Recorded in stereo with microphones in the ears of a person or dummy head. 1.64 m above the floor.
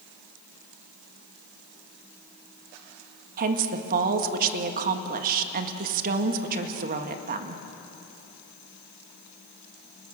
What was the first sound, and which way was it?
A woman speaking, 55° right (ahead or behind).